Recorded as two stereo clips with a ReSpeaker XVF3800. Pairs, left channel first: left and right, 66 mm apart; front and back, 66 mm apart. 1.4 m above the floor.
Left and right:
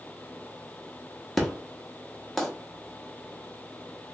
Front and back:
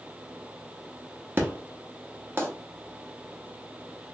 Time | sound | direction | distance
1.4 | an explosion | 170° left | 0.9 m